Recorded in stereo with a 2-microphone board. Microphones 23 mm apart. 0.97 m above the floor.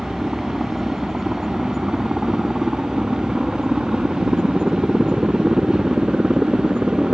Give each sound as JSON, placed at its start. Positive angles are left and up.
{"t": 0.0, "sound": "a helicopter", "side_deg": -5}